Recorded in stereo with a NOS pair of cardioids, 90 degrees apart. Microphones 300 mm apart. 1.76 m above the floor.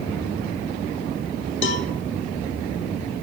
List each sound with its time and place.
1.6 s a cowbell: 40° left, 0.6 m